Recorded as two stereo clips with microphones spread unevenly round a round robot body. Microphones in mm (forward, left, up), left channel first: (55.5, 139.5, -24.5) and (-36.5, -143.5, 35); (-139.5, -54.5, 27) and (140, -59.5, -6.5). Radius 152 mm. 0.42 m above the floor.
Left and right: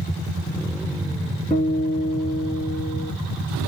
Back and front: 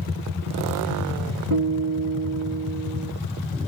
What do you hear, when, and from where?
1.5 s a guitar: straight ahead, 5 m